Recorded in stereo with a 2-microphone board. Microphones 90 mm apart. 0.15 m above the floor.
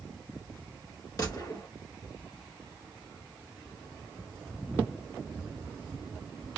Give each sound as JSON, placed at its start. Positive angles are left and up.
{"t": 1.2, "sound": "a gunshot", "side_deg": 40, "distance_m": 1.3}